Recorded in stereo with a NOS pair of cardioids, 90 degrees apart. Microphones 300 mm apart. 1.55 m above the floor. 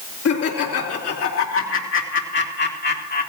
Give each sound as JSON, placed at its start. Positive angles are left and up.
{"t": 0.2, "sound": "laughter", "azimuth_deg": 50, "distance_m": 3.5}